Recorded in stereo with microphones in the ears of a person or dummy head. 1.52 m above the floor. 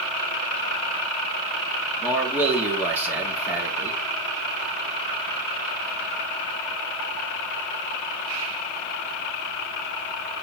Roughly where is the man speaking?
Centre.